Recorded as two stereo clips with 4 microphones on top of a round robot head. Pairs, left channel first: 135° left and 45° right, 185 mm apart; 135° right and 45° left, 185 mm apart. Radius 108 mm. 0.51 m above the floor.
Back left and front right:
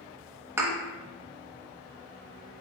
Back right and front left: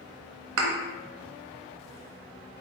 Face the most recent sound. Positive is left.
turn(degrees=35)